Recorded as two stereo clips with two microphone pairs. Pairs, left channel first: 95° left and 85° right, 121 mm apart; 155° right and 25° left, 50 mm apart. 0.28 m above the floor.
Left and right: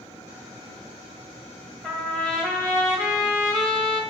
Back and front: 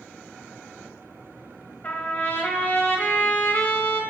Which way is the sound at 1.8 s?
170° right.